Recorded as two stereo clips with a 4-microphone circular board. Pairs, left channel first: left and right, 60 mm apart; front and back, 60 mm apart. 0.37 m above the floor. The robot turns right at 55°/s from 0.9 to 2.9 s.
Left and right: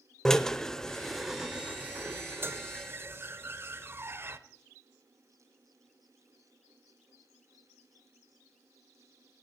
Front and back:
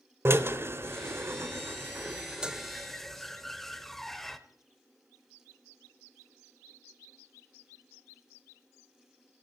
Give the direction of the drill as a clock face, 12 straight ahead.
6 o'clock.